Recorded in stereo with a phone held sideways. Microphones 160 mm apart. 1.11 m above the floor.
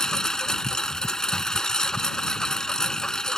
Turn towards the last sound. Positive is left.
turn(degrees=5)  # may be behind; listen again after turning